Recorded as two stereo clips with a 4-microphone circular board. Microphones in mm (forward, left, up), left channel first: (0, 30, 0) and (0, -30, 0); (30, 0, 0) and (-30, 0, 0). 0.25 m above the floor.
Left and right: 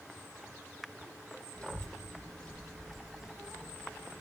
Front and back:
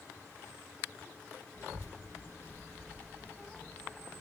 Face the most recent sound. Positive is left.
turn(degrees=-85)